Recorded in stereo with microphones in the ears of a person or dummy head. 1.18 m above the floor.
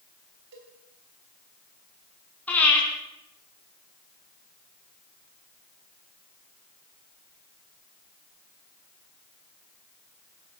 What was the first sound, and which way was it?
A cowbell, 65° right (ahead or behind).